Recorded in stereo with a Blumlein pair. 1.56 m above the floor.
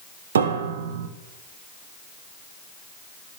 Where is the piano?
65° right, 1.2 m.